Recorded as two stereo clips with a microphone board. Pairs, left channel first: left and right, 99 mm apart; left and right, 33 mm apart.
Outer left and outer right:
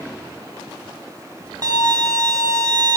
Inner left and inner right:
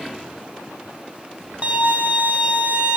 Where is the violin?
45° right (ahead or behind), 1.0 m.